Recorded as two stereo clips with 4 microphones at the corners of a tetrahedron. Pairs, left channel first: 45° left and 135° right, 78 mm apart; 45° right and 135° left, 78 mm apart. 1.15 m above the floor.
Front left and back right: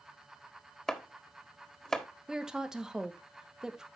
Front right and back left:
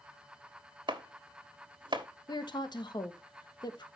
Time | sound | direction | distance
0.9 | chopping | 130° left | 1.5 m
2.3 | a woman speaking | 55° right | 1.3 m